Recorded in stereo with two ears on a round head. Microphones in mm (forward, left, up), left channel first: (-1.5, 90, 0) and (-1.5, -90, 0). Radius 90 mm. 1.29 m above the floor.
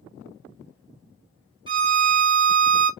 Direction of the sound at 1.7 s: 25° right (ahead or behind).